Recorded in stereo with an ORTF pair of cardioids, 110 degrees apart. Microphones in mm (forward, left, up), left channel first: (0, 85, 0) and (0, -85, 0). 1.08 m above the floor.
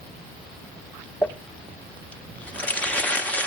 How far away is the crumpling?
About 1.2 m.